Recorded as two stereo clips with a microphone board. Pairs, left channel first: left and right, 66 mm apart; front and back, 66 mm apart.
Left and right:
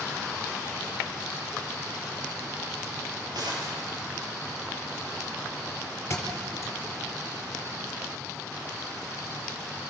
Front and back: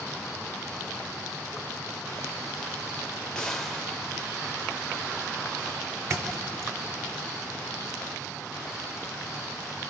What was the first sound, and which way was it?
A gunshot, 80° right.